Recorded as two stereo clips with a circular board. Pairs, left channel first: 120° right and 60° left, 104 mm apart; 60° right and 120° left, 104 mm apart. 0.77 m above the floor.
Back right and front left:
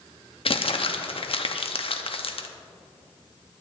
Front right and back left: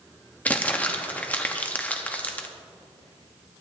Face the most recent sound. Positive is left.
turn(degrees=-135)